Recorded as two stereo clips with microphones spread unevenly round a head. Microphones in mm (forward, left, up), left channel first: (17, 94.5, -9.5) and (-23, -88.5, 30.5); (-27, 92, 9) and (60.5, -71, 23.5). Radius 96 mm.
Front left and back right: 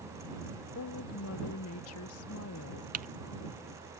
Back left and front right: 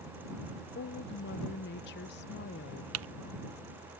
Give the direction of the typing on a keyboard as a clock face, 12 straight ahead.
2 o'clock.